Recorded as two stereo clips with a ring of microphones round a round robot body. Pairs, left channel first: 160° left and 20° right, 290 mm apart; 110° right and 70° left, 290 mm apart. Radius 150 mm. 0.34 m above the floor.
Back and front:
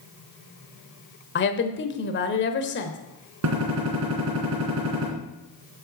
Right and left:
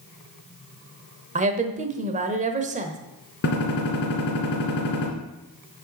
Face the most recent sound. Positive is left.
turn(degrees=-60)